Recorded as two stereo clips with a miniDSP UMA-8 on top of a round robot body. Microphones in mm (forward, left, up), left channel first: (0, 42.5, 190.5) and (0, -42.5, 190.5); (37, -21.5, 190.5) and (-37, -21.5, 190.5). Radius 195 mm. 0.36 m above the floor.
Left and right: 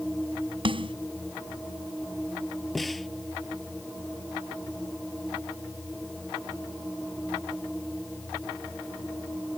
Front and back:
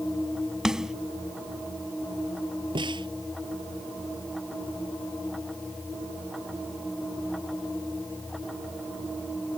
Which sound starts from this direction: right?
A snare drum, at 0.7 s.